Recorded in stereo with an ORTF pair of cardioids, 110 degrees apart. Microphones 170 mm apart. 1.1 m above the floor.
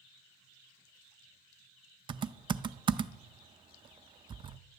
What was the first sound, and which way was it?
Typing on a keyboard, 30° right.